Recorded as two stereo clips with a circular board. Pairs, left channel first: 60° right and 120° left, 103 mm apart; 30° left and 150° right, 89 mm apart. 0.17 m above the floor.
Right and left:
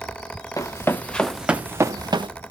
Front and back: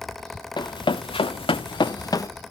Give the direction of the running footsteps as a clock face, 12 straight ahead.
12 o'clock.